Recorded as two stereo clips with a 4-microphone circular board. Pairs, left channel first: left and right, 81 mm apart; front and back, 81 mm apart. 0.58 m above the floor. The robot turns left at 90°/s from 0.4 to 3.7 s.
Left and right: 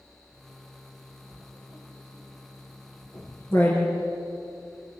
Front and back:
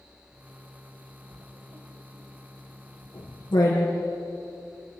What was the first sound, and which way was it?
Writing, 135° right.